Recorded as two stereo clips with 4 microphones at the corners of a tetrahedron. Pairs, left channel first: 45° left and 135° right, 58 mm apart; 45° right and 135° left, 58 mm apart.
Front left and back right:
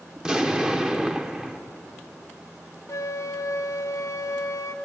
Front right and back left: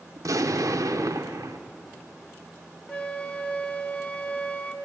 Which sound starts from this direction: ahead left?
A flute, at 2.9 s.